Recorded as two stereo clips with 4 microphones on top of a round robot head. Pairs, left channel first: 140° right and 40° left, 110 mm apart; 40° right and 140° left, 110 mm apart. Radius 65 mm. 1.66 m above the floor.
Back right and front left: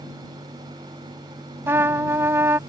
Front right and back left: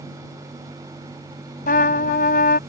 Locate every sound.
1.7 s a trumpet: 30° right